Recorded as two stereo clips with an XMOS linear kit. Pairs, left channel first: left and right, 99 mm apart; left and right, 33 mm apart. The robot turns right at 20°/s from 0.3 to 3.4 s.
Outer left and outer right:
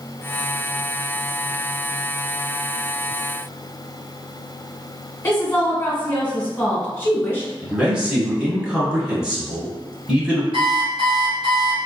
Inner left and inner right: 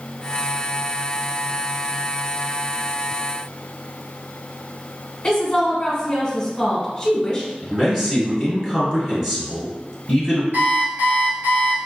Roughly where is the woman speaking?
Left.